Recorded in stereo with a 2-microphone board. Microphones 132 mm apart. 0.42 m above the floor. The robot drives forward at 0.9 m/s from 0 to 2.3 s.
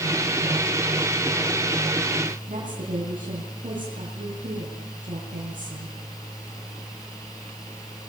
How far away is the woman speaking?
About 8 m.